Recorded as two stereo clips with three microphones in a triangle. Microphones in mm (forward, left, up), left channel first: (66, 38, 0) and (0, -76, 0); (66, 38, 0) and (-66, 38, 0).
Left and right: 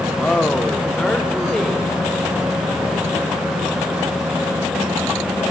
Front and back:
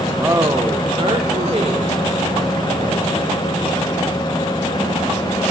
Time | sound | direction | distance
0.2 | a woman speaking | 130° left | 1.2 m